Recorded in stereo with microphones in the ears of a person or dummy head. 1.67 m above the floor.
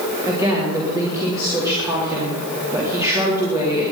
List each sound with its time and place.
0.3 s a woman speaking: 15° right (ahead or behind), 4 m